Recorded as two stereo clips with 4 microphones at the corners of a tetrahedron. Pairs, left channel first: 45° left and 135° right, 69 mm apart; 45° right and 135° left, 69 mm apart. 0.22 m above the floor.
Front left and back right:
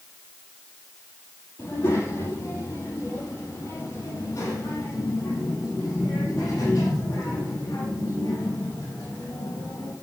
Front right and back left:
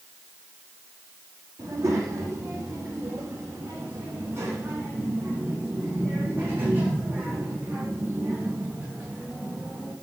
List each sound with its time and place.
1.6 s a child speaking: 90° left, 5 m; by 9.9 s 65° left, 8.5 m